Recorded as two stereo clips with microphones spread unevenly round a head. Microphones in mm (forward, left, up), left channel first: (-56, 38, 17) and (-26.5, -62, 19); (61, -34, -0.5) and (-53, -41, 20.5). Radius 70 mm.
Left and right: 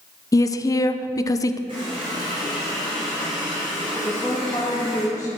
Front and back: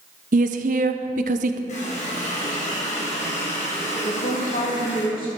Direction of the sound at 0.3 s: 165° left.